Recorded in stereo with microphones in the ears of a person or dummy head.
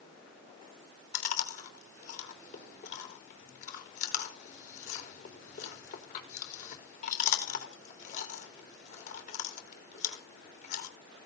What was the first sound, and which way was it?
Chewing, 45° left (ahead or behind).